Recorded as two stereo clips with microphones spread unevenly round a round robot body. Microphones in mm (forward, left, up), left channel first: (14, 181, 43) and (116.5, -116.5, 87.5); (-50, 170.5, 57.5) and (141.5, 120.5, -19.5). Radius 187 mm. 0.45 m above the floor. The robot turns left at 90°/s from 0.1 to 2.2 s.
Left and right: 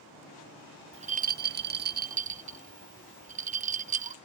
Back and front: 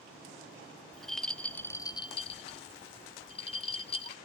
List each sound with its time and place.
0.9 s a rattle: 5° right, 0.5 m; by 4.2 s 120° right, 0.5 m